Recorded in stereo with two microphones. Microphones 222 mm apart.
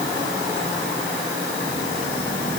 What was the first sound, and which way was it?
Only background noise.